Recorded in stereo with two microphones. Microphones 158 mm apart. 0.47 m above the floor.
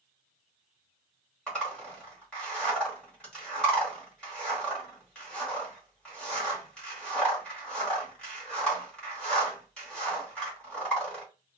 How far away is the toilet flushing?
No toilet flushing in this recording.